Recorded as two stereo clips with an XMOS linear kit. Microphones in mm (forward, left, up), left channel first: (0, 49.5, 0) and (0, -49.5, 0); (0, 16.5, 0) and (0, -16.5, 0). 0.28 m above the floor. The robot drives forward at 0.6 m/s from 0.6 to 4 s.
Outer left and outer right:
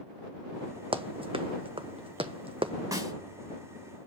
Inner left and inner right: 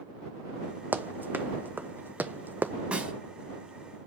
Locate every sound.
0.9 s running footsteps: 65° right (ahead or behind), 0.7 m; by 2.7 s 70° right (ahead or behind), 0.7 m
2.9 s a snare drum: 35° right (ahead or behind), 2 m; by 3.1 s 30° right (ahead or behind), 2.5 m